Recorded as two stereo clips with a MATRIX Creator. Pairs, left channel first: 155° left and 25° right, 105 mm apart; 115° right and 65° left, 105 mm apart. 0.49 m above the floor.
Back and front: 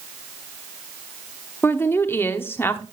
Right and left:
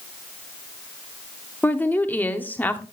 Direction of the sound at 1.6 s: 160° right.